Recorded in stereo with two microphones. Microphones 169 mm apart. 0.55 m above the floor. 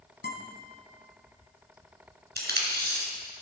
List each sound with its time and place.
0.2 s a guitar: 80° left, 2.5 m
2.4 s tape being pulled: 75° right (ahead or behind), 3 m